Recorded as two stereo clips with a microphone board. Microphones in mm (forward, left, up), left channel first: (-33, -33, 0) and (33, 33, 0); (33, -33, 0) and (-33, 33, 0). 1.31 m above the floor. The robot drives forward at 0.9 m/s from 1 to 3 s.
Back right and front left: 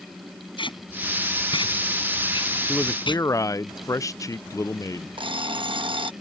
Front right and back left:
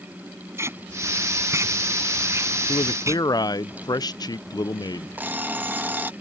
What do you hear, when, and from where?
0.6 s tape being pulled: 165° right
2.7 s a man speaking: 55° right; by 5.1 s 85° right
5.2 s an alarm clock: 65° left